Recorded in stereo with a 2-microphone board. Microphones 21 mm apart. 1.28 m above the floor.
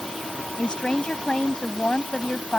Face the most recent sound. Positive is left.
turn(degrees=50)  # may be behind; listen again after turning